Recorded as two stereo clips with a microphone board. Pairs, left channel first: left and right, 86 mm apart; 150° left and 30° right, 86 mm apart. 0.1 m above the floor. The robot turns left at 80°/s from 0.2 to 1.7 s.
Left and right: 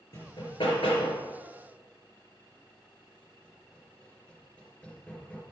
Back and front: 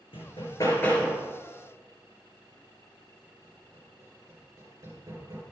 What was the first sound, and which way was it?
Hammering, 140° left.